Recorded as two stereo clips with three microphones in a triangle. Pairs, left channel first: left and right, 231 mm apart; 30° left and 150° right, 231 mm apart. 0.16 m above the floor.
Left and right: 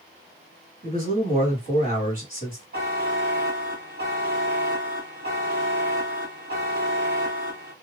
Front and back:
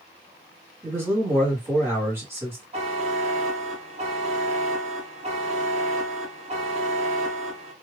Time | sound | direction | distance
0.8 | a man speaking | 75° right | 1.7 m
2.7 | a buzzer | 100° right | 1.1 m